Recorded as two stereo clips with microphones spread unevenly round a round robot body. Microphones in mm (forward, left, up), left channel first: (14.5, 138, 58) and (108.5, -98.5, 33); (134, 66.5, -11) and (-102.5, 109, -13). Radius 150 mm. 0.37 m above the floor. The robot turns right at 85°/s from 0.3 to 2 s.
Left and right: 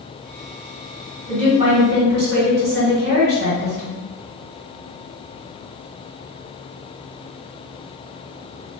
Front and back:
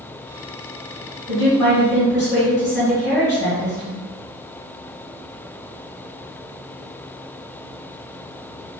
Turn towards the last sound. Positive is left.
turn(degrees=-65)